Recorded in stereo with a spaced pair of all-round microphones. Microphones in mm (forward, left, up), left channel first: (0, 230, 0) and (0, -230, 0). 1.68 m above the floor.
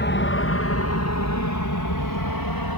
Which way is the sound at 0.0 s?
25° left (ahead or behind).